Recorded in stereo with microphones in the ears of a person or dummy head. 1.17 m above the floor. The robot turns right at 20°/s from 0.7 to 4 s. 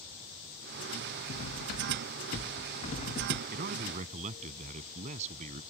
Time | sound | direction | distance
1.3 | cutlery clinking | 105° left | ?
3.5 | a man speaking | 55° right (ahead or behind) | ?